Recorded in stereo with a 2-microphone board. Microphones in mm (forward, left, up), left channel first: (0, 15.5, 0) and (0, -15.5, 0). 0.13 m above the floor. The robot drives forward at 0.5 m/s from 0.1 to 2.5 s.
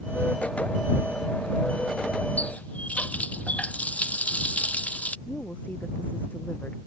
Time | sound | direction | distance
2.4 | a running tap | 50° left (ahead or behind) | ?
5.3 | a woman speaking | 80° left | ?